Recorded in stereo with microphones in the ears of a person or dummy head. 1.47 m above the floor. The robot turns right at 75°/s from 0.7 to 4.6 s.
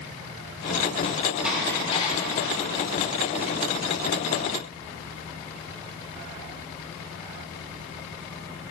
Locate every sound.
1.4 s dishes clattering: 10° right (ahead or behind), 3.5 m; by 2.6 s 75° left (ahead or behind), 3.5 m